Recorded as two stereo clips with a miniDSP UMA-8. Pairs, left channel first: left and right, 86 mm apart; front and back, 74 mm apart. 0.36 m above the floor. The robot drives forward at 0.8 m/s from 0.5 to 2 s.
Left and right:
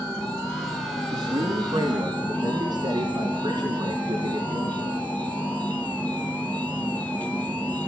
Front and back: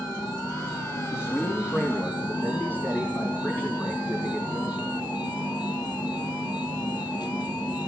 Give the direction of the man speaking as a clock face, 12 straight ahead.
2 o'clock.